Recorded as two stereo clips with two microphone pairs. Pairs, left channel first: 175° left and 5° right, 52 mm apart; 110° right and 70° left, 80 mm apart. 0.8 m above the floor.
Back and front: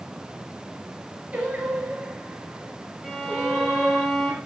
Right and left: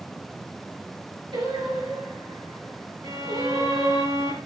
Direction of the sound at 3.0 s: 75° left.